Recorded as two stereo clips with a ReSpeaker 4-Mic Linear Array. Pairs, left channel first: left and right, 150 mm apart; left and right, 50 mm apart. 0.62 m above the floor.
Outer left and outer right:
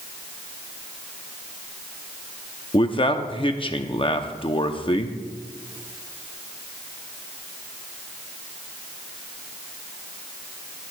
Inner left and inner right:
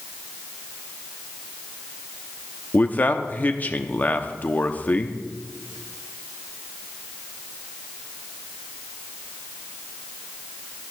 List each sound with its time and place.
2.7 s a man speaking: 35° left (ahead or behind), 0.7 m